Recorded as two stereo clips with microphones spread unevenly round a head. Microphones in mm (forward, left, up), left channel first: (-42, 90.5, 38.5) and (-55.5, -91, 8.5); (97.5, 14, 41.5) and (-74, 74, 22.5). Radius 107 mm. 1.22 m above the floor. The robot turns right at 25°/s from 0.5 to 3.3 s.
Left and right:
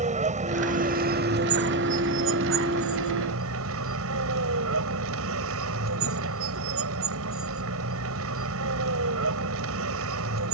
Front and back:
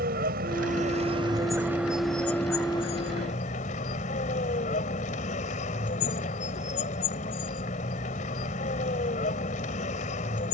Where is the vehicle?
145° right; by 10.5 s 75° right.